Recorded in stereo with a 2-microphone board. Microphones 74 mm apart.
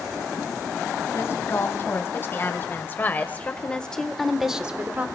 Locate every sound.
1.1 s a woman speaking: 40° left (ahead or behind), 3.5 m; by 5.1 s 25° right (ahead or behind), 1.2 m